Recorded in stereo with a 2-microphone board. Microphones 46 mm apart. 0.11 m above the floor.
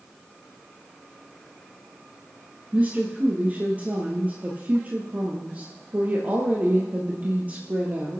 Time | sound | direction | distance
2.7 | a woman speaking | 35° right (ahead or behind) | 2.5 m